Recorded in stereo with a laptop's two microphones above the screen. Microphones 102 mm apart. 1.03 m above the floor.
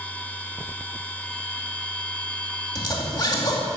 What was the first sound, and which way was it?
A machine running, 15° left (ahead or behind).